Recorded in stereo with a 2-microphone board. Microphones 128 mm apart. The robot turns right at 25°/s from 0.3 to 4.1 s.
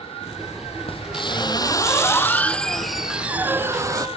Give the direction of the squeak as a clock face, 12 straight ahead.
8 o'clock.